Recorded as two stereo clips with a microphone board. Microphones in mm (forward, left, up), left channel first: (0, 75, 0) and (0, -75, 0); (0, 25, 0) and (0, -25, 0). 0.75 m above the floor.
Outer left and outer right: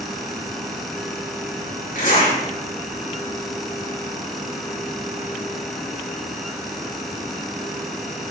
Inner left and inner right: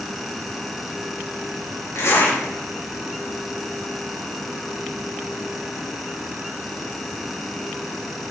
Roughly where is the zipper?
Left.